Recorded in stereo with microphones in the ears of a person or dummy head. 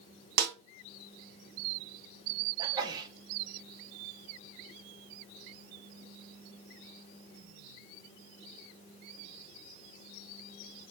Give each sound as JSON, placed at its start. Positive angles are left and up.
{"t": 0.4, "sound": "a snare drum", "side_deg": -50, "distance_m": 0.7}
{"t": 2.6, "sound": "a sneeze", "side_deg": -20, "distance_m": 1.0}